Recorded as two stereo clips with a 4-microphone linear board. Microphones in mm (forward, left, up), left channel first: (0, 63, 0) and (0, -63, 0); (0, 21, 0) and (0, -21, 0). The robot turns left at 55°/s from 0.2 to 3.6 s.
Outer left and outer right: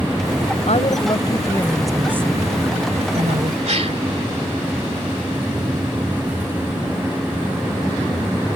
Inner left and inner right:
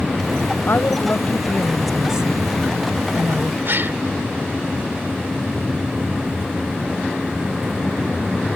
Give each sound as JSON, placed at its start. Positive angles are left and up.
{"t": 0.7, "sound": "a woman speaking", "azimuth_deg": 65}
{"t": 3.6, "sound": "a gasp", "side_deg": -60}